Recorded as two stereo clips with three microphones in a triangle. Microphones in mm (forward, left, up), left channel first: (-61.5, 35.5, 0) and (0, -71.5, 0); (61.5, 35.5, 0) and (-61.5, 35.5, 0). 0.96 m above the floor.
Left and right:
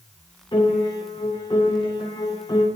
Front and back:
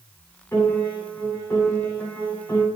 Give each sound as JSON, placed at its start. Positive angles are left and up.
{"t": 0.5, "sound": "a piano", "azimuth_deg": 70, "distance_m": 7.5}